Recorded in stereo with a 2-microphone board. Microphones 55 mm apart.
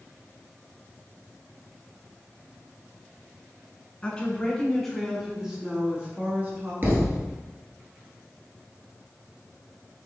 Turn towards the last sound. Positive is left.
turn(degrees=-40)  # may be behind; listen again after turning